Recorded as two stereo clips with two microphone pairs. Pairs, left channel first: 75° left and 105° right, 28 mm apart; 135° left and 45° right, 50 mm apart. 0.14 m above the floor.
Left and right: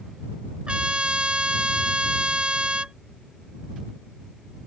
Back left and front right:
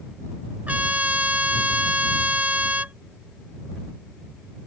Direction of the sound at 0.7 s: 85° right.